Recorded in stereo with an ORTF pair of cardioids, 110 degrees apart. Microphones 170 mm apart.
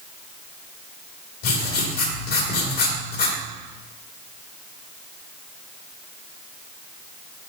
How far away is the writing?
About 2.5 m.